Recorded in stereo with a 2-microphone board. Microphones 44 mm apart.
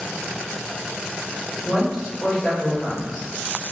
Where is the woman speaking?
10° left (ahead or behind), 1.6 m.